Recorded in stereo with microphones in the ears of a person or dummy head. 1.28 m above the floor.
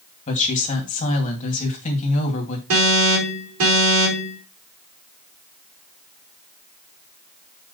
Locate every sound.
0.3 s a woman speaking: 45° left (ahead or behind), 2.5 m
2.7 s an alarm: 80° right, 4 m